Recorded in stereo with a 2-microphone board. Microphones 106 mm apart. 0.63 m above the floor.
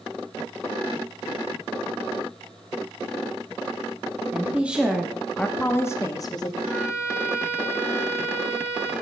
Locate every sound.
4.3 s a woman speaking: 15° right (ahead or behind), 1.4 m; by 6.5 s 40° left (ahead or behind), 1.2 m
6.6 s a violin: 20° right (ahead or behind), 7 m